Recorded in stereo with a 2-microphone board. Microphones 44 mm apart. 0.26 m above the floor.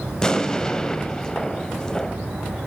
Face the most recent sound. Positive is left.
turn(degrees=15)  # may be behind; listen again after turning